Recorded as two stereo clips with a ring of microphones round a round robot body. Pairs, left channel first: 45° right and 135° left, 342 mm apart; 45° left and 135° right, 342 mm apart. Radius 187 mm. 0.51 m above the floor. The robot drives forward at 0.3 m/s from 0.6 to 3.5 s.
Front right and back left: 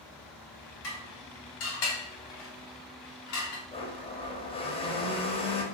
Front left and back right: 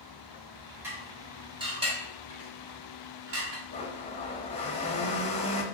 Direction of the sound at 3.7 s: 5° left.